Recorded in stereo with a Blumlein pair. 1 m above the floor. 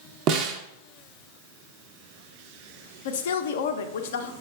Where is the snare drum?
35° right, 0.5 m.